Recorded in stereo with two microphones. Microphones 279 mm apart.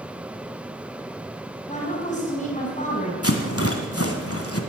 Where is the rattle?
55° left (ahead or behind), 1.8 m.